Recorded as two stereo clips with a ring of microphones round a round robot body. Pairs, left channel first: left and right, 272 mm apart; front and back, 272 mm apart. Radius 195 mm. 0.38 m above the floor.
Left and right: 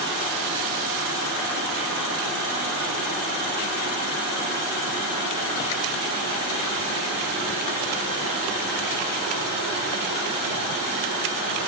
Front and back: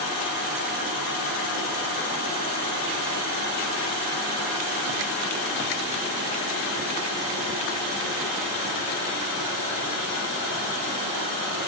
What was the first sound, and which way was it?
Only background noise.